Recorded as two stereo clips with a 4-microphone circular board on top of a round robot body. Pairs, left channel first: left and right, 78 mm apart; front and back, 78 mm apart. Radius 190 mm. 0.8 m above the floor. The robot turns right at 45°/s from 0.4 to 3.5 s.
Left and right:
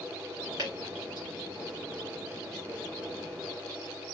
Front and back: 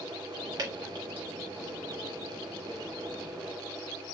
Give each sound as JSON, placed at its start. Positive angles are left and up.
{"t": 0.6, "sound": "dripping", "azimuth_deg": -140, "distance_m": 0.9}